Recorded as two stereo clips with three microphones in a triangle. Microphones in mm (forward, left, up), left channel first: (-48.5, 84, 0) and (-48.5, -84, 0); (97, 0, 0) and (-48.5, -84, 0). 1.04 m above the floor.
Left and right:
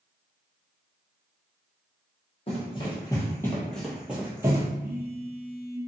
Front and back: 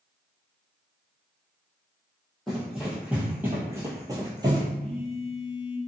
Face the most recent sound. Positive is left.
turn(degrees=-100)